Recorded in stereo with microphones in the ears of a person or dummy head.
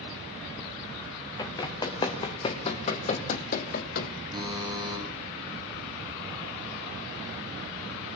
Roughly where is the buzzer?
Centre.